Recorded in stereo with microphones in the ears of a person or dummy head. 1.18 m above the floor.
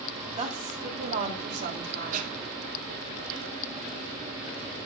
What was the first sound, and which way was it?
A woman speaking, 35° right (ahead or behind).